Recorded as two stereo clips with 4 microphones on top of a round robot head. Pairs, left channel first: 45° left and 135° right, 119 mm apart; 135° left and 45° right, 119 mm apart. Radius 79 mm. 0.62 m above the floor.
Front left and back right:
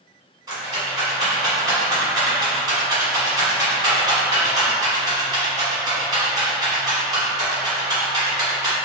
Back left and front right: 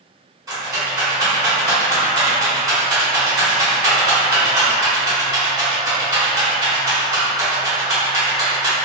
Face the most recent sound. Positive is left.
turn(degrees=-95)